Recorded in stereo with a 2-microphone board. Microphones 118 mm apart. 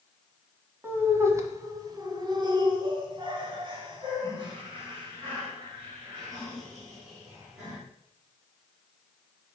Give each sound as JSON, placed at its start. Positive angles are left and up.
{"t": 0.8, "sound": "laughter", "side_deg": -20, "distance_m": 1.4}